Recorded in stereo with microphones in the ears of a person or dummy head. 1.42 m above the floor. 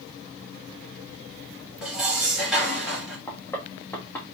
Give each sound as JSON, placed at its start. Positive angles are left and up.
{"t": 1.8, "sound": "dishes clattering", "side_deg": 0, "distance_m": 1.1}
{"t": 3.3, "sound": "knocking", "side_deg": 15, "distance_m": 1.2}